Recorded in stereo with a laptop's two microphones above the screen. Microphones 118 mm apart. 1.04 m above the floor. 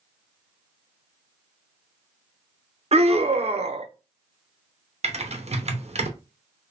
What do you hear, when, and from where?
2.9 s a scream: 60° right (ahead or behind), 0.7 m
5.0 s typing on a keyboard: 65° right (ahead or behind), 0.6 m